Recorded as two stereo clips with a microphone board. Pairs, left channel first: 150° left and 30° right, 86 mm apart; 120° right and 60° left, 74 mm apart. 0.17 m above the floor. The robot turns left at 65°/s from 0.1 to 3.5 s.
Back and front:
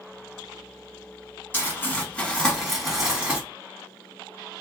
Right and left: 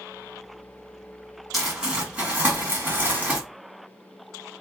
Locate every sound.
1.5 s crumpling: 145° left, 1.5 m; by 3.4 s 25° left, 1.5 m